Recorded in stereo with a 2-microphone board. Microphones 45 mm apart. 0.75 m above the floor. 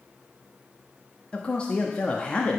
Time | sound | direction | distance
1.3 | a man speaking | 25° left (ahead or behind) | 0.9 m